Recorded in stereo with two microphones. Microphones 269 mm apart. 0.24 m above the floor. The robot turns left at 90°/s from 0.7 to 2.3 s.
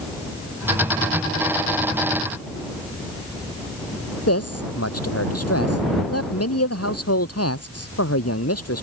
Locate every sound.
4.3 s a man speaking: 60° left (ahead or behind)